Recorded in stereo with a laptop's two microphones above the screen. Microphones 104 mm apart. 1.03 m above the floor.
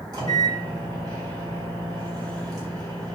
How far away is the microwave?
About 4 m.